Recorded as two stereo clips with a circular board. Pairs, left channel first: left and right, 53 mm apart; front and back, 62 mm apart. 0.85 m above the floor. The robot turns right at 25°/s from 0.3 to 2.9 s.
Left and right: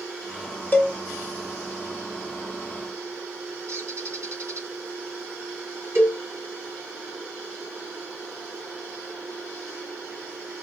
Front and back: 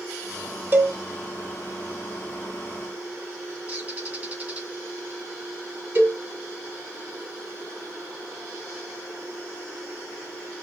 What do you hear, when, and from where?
0.7 s a cowbell: 135° left, 1.9 m; by 0.9 s 140° left, 1.9 m
3.7 s a bird: 120° right, 2.0 m
6.0 s a cowbell: 125° right, 2.5 m